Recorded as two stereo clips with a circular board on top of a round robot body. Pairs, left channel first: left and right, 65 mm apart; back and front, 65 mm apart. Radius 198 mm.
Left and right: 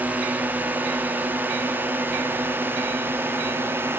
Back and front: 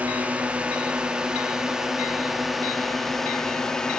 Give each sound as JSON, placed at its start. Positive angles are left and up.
{"t": 0.0, "sound": "a drone", "azimuth_deg": -50}